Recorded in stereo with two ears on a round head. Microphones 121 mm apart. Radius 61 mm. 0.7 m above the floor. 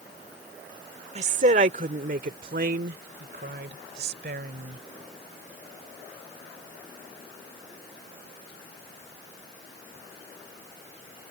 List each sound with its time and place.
1.1 s a woman speaking: 50° right (ahead or behind); by 4.8 s 80° right